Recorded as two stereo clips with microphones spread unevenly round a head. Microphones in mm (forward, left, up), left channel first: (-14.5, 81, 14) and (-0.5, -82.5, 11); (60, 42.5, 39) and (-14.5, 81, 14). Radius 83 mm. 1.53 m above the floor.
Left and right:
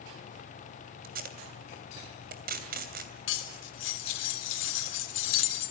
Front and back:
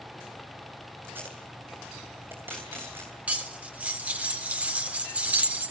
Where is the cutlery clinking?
75° left, 3 m.